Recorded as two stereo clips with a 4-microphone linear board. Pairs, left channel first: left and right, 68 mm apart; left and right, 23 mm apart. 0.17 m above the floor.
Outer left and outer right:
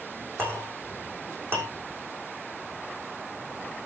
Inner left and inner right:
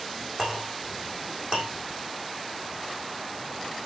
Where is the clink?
35° right (ahead or behind), 6.5 m.